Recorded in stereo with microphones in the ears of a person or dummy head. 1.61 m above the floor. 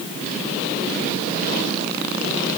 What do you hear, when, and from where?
Only background noise.